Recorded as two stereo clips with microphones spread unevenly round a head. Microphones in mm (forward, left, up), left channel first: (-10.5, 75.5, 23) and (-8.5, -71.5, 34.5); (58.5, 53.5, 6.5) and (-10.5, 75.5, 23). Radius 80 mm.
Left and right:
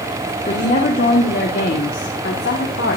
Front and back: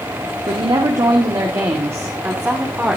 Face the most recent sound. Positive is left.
turn(degrees=95)